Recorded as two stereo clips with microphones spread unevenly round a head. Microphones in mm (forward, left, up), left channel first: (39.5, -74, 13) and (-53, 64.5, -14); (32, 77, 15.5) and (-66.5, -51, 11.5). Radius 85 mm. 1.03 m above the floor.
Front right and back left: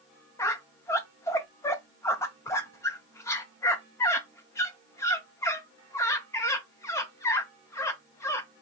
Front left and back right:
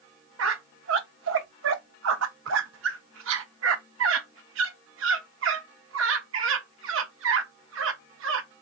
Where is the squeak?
130° right, 0.6 m.